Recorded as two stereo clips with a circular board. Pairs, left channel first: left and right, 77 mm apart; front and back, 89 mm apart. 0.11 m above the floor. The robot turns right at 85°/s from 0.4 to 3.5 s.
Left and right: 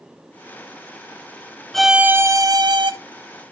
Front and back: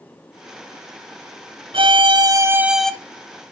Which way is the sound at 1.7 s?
175° left.